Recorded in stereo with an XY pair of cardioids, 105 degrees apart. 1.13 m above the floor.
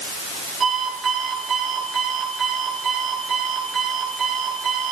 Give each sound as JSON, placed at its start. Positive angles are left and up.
{"t": 0.6, "sound": "an alarm clock", "azimuth_deg": -50, "distance_m": 9.0}